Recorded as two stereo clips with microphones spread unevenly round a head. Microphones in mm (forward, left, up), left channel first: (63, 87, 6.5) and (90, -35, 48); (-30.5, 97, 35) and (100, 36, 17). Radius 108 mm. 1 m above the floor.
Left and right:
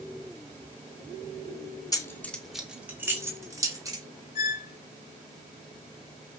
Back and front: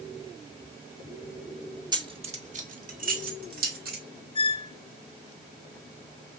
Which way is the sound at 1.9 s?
40° left.